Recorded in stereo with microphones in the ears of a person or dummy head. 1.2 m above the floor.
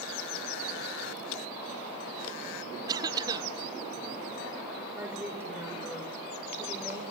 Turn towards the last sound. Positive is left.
turn(degrees=-10)  # may be behind; listen again after turning